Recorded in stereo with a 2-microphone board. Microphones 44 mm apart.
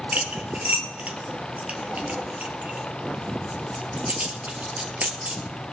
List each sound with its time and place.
0.1 s cutlery clinking: 35° right (ahead or behind), 1.7 m